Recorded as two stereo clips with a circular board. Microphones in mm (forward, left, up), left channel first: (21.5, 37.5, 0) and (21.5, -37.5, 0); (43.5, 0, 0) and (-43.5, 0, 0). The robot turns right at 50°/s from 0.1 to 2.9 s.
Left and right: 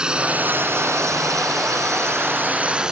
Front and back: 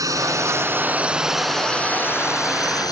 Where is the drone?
165° right; by 2.9 s 10° right.